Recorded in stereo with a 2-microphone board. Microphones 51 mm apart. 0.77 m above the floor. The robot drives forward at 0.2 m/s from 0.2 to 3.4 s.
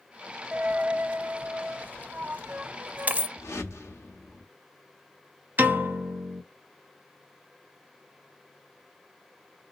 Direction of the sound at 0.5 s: 30° right (ahead or behind).